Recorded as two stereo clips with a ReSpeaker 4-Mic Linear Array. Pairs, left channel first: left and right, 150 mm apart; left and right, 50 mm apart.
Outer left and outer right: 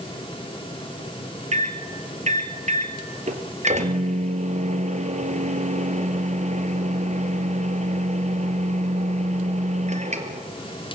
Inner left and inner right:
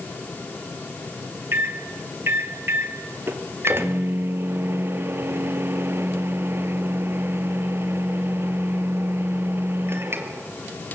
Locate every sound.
1.5 s a microwave: 50° right (ahead or behind), 2 m